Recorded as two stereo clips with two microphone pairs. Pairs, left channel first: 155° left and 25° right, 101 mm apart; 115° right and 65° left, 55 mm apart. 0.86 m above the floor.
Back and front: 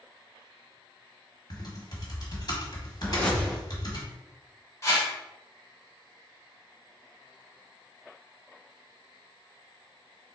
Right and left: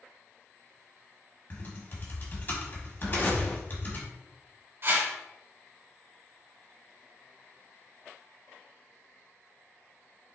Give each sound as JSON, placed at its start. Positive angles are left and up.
{"t": 1.5, "sound": "typing on a keyboard", "azimuth_deg": -160, "distance_m": 1.4}
{"t": 3.0, "sound": "a whoosh", "azimuth_deg": -135, "distance_m": 1.4}
{"t": 4.8, "sound": "a whoosh", "azimuth_deg": 95, "distance_m": 1.8}